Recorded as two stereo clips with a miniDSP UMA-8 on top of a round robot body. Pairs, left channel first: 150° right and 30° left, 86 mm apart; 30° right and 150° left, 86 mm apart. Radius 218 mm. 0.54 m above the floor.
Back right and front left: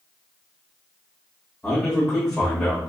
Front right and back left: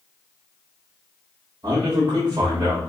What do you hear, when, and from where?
1.6 s a man speaking: 130° left, 1.6 m